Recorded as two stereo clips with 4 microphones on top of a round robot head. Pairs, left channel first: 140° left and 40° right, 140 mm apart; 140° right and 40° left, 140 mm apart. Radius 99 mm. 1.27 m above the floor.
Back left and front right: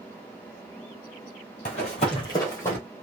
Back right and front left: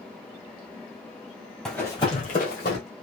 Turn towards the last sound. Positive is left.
turn(degrees=-150)